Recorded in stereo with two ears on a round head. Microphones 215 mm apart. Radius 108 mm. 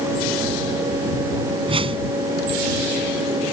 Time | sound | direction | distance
1.7 | a whoosh | 25° right (ahead or behind) | ?